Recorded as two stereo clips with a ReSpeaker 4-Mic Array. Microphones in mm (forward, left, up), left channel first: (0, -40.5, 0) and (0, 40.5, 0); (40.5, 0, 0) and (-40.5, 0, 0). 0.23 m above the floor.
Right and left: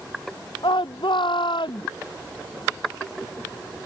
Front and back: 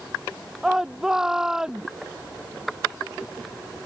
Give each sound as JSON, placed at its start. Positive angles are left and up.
{"t": 0.6, "sound": "a shout", "azimuth_deg": -95}